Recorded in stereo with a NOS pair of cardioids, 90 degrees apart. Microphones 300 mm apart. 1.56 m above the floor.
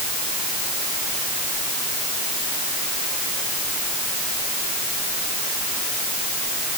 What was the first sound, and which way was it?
Only background noise.